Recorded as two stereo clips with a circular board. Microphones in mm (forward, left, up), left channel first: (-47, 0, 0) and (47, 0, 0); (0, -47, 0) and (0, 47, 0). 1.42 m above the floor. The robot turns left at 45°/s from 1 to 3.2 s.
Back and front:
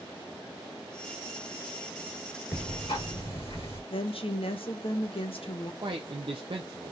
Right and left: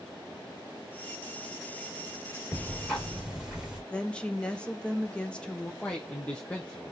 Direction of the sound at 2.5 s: 160° right.